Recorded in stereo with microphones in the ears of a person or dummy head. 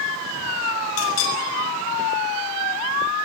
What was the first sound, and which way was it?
A clink, 80° left.